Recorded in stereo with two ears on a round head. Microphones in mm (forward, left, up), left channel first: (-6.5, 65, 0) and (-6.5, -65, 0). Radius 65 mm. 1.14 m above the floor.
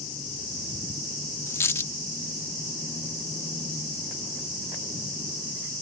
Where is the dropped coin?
20° left (ahead or behind).